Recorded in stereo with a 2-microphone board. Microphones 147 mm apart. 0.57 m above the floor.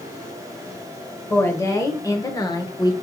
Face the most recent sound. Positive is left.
turn(degrees=30)  # may be behind; listen again after turning